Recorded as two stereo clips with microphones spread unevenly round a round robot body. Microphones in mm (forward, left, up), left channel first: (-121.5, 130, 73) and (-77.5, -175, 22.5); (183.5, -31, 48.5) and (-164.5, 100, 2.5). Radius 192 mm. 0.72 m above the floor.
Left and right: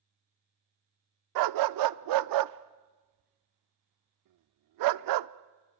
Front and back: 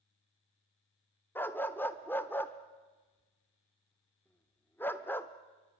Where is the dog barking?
105° right, 0.6 m.